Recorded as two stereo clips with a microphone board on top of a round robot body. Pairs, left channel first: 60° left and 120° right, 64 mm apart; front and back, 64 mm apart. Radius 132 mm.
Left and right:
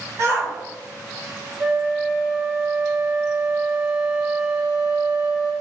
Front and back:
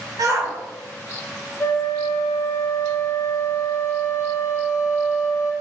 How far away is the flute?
About 0.7 m.